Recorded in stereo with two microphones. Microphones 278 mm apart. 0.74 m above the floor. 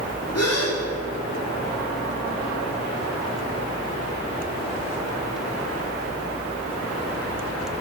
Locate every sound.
0.3 s a gasp: 60° left (ahead or behind), 2 m